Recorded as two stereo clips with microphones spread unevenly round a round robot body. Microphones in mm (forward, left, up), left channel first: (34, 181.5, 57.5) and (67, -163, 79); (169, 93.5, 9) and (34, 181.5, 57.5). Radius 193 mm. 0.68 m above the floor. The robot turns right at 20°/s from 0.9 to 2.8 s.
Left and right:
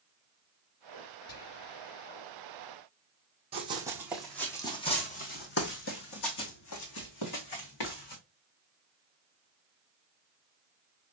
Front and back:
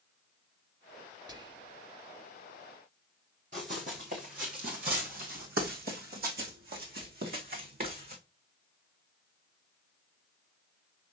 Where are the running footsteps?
160° right, 1.8 m; by 8.2 s 130° left, 3 m.